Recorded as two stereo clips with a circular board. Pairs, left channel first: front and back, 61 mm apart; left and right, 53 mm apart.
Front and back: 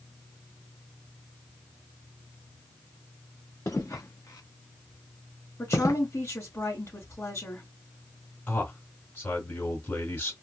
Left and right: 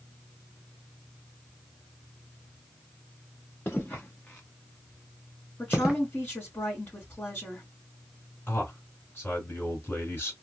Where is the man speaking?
45° left, 3 m.